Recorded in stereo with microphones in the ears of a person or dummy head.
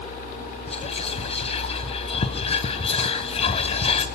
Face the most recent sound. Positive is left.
turn(degrees=35)  # may be behind; listen again after turning